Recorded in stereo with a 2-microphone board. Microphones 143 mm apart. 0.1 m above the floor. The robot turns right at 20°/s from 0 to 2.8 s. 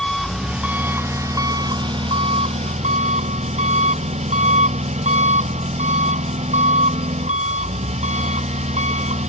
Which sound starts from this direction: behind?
An engine running, at 0.0 s.